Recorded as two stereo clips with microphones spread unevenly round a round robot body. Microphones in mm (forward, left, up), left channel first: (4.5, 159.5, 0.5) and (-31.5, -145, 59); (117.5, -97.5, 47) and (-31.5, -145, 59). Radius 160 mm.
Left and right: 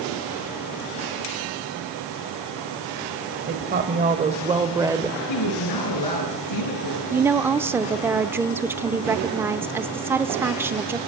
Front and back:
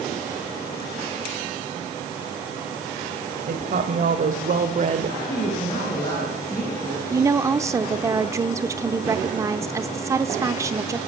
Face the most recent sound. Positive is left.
turn(degrees=165)